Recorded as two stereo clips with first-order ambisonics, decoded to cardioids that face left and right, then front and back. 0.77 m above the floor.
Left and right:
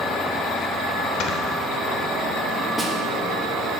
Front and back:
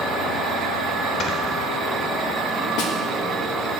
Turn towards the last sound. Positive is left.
turn(degrees=5)